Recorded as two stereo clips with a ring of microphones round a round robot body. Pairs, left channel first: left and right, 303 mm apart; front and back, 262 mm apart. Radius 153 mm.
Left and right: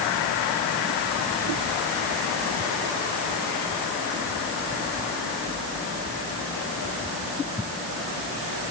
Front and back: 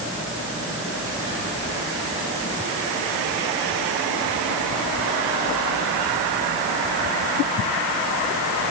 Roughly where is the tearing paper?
I don't hear tearing paper.